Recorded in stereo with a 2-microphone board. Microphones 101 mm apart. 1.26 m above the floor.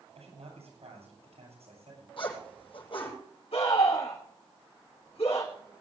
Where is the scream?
75° left (ahead or behind), 7 m.